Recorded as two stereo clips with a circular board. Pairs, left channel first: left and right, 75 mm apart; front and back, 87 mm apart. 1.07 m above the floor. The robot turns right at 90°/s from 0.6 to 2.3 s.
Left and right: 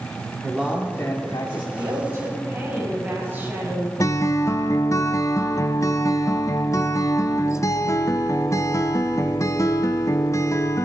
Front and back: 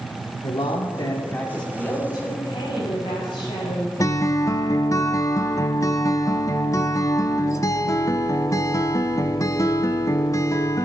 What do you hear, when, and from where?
0.4 s a man speaking: 10° right, 2.5 m; by 1.6 s 85° left, 2.5 m
1.7 s a woman speaking: 75° right, 6 m; by 3.9 s 25° right, 6 m
4.0 s a guitar: 45° left, 0.7 m